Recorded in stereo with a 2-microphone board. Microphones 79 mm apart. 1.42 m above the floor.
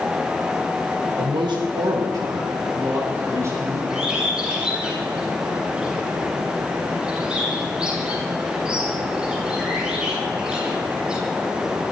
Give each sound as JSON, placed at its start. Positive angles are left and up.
{"t": 1.2, "sound": "a man speaking", "side_deg": -80, "distance_m": 1.3}
{"t": 3.9, "sound": "a bird", "side_deg": -15, "distance_m": 8.0}